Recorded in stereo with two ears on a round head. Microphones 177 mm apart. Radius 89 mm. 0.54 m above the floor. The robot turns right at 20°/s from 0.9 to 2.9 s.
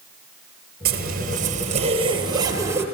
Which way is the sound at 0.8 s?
50° right.